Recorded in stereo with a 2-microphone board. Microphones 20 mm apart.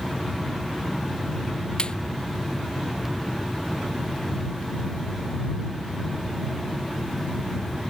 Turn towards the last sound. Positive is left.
turn(degrees=50)  # may be behind; listen again after turning